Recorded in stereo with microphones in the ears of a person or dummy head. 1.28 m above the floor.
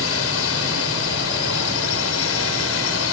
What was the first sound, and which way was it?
A drone, 70° left (ahead or behind).